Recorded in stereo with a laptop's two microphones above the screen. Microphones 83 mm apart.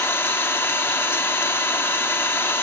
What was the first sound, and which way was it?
An engine running, 30° left (ahead or behind).